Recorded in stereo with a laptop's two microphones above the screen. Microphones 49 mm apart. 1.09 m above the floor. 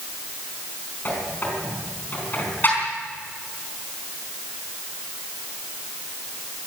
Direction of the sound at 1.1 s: 40° left (ahead or behind).